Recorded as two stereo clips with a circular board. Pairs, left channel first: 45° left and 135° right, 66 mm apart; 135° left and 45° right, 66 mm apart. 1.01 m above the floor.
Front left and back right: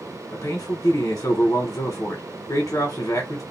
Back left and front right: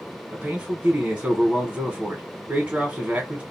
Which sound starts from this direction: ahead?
A man speaking, at 0.3 s.